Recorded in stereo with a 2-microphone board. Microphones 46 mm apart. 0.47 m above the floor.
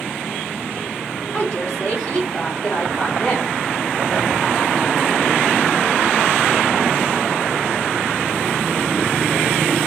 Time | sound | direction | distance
1.3 | a woman speaking | 35° left (ahead or behind) | 1.6 m